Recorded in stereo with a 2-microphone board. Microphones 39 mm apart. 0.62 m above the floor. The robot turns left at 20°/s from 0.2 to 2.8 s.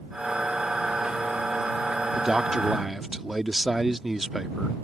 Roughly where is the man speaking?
Centre.